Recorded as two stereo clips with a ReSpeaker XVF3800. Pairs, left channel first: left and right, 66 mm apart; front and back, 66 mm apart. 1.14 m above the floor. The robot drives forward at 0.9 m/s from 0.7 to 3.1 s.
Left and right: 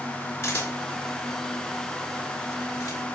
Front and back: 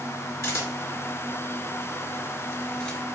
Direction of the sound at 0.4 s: 40° left.